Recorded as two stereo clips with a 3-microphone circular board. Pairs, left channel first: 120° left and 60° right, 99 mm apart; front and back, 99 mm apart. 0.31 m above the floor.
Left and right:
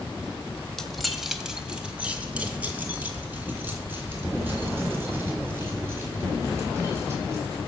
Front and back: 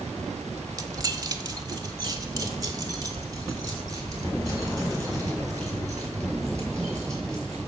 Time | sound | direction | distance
0.8 | keys jangling | 155° right | 1.2 m